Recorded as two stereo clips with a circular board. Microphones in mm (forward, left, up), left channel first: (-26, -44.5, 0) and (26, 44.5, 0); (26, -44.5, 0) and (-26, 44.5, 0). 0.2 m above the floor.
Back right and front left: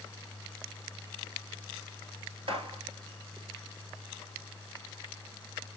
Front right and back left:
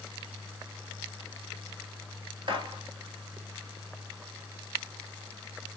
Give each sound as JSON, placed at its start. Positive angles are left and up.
{"t": 2.5, "sound": "a gunshot", "azimuth_deg": 85, "distance_m": 1.1}